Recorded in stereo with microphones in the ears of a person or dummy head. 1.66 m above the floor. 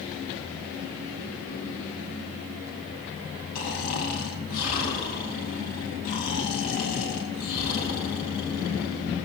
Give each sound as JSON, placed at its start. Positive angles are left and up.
{"t": 3.5, "sound": "snoring", "side_deg": 45, "distance_m": 3.0}